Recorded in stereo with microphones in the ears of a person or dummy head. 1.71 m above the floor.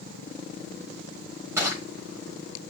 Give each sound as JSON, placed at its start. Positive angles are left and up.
{"t": 1.6, "sound": "crushing", "side_deg": -10, "distance_m": 1.5}